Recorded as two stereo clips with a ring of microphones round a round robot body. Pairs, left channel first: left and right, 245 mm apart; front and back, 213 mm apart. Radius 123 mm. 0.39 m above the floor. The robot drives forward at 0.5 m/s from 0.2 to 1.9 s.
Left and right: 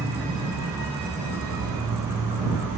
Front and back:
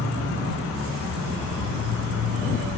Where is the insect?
170° right, 1.2 m; by 2.8 s 175° right, 2 m.